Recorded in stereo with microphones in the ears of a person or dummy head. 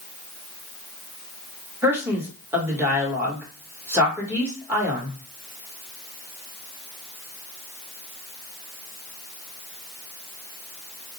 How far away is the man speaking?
About 1.3 m.